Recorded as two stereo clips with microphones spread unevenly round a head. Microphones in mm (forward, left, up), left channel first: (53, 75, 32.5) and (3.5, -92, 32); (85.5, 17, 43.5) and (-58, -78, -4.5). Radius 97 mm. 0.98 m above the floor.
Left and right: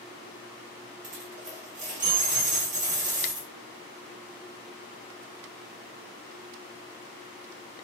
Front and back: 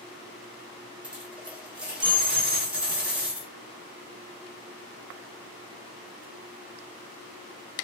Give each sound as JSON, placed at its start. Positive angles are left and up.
{"t": 1.0, "sound": "a dropped coin", "azimuth_deg": -60, "distance_m": 2.0}